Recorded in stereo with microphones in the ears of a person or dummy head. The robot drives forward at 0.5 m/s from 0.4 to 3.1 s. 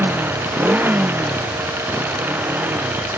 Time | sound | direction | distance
0.0 | a motorcycle | 10° right (ahead or behind) | ?